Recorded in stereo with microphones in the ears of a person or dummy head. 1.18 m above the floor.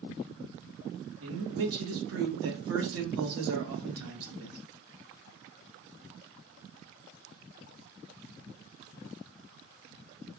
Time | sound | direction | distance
1.2 | a man speaking | 75° right (ahead or behind) | 1.2 m